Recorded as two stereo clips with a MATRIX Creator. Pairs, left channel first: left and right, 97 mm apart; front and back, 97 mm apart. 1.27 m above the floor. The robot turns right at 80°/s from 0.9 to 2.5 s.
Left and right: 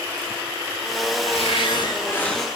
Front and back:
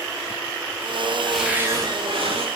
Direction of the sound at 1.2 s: 85° left.